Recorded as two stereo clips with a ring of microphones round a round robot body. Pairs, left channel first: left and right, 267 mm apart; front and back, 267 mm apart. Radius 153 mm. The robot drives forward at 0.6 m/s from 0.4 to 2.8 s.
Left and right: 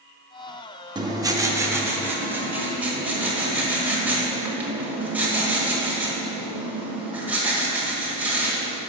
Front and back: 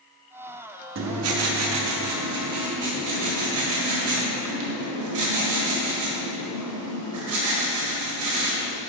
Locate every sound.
0.9 s writing: 160° right, 0.7 m; by 8.8 s 175° right, 1.7 m